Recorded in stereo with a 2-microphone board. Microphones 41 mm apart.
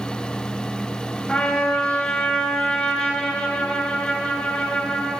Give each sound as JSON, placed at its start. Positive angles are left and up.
{"t": 1.3, "sound": "a trumpet", "side_deg": 15, "distance_m": 2.5}